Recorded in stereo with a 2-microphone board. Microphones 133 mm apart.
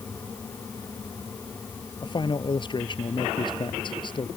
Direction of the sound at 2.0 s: 35° left (ahead or behind).